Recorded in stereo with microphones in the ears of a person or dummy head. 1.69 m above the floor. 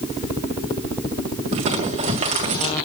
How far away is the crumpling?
About 1.9 m.